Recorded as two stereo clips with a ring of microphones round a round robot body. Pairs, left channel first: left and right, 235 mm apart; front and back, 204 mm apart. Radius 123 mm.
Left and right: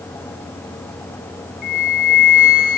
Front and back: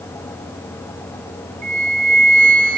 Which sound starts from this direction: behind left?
A flute, at 1.6 s.